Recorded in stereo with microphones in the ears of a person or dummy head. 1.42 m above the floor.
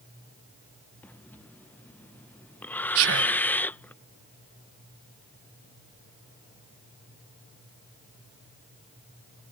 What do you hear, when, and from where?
1.0 s breathing: 10° left (ahead or behind)
3.0 s whispering: 75° right (ahead or behind)